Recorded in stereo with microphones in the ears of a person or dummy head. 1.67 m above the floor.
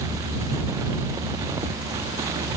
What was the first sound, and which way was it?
Only background noise.